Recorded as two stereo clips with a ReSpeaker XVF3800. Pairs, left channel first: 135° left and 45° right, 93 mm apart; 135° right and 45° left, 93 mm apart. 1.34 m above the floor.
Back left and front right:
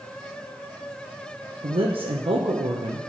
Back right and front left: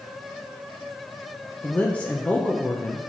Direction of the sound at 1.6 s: 60° right.